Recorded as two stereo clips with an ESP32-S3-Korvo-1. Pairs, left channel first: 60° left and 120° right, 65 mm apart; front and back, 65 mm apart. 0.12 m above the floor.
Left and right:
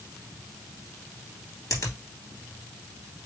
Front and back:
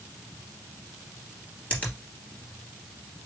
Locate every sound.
1.7 s a finger snap: 65° left, 2.5 m